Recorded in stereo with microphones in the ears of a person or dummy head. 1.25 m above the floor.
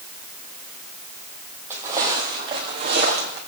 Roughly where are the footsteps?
Centre.